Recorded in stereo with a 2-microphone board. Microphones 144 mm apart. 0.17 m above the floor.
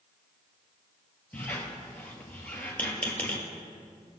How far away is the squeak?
About 1.8 m.